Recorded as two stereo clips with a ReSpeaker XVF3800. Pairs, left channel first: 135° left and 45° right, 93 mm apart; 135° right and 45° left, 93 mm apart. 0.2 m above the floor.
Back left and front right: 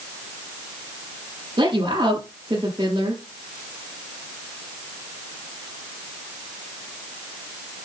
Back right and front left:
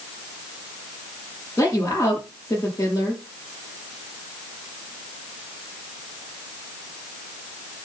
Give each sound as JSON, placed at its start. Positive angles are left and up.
{"t": 1.6, "sound": "a woman speaking", "azimuth_deg": -80, "distance_m": 5.0}